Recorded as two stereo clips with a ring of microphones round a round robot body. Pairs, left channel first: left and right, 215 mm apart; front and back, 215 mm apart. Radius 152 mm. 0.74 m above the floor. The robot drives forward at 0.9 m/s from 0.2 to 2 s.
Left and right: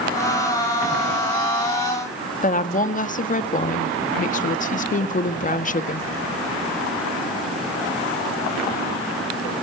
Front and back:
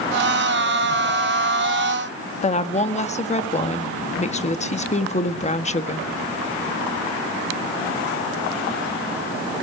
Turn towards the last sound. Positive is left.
turn(degrees=50)